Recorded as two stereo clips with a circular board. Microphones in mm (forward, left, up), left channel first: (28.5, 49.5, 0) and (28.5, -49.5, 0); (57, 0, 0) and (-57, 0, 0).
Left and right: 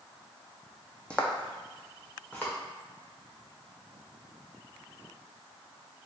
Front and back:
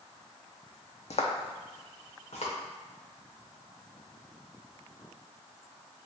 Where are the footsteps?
10° left, 0.6 m; by 2.5 s 15° left, 1.4 m.